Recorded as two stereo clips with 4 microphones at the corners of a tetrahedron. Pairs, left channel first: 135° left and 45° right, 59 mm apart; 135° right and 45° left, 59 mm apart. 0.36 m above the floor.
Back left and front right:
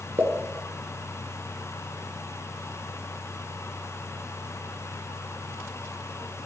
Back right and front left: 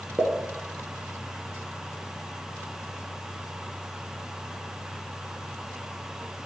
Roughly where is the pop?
Ahead.